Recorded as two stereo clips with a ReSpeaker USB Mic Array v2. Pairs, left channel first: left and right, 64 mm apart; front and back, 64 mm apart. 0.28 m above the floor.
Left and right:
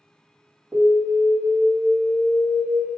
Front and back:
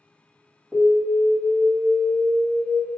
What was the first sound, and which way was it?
An alarm, 120° right.